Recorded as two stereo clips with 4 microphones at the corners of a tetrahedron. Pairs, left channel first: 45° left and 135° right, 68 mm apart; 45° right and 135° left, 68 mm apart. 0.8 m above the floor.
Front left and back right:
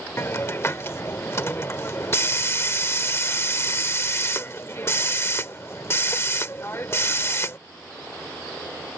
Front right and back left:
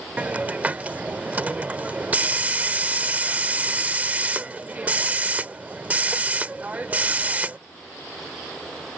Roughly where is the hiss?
Left.